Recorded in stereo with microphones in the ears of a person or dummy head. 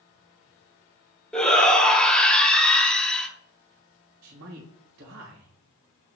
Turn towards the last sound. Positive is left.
turn(degrees=-75)  # may be behind; listen again after turning